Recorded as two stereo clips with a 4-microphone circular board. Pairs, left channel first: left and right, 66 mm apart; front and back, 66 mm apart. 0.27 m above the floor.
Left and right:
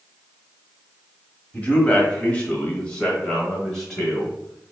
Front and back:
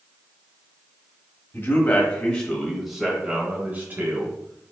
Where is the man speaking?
30° left, 1.3 m; by 4.7 s 175° left, 1.5 m.